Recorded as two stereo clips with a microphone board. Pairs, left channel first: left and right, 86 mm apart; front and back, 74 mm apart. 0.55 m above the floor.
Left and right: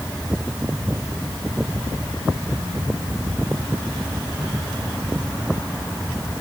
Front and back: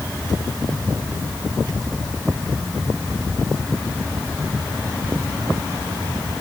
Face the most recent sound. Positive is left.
No sound to turn to.